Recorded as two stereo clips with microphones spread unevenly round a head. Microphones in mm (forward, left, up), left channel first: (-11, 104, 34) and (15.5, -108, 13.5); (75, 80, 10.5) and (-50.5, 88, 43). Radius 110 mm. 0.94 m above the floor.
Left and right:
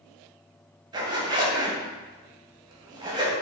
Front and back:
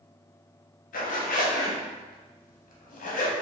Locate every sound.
0.9 s a zipper: 10° right, 0.7 m